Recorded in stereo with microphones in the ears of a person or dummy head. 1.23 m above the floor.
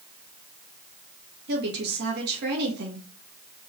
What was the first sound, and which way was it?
A woman speaking, 60° right (ahead or behind).